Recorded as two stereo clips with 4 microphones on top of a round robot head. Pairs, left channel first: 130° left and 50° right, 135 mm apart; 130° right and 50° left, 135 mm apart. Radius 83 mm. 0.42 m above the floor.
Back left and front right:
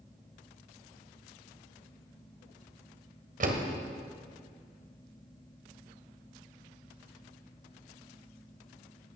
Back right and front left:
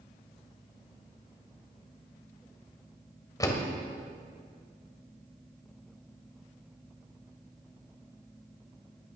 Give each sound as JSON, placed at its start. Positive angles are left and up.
{"t": 3.4, "sound": "a door slam", "azimuth_deg": -65, "distance_m": 1.8}